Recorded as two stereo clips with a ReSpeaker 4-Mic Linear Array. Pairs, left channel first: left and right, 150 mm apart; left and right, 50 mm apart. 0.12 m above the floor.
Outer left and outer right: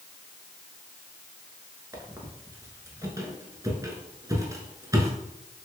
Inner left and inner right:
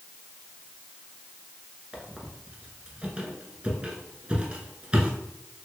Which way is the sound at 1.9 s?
20° right (ahead or behind).